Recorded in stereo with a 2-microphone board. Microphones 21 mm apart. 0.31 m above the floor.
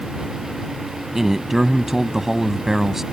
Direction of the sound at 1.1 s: 20° right (ahead or behind).